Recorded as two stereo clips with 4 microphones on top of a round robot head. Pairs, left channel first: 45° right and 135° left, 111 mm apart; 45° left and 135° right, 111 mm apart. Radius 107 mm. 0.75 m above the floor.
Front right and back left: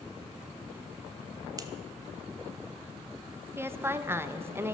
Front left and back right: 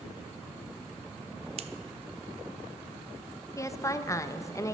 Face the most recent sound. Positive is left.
turn(degrees=80)